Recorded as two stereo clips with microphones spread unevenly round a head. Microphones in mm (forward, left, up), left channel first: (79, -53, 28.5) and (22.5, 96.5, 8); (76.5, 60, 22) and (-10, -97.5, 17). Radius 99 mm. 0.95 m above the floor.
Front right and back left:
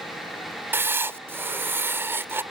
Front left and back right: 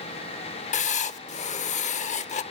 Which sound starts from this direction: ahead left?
Writing, at 0.7 s.